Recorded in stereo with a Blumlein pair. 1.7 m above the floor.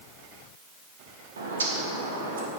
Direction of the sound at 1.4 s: 70° right.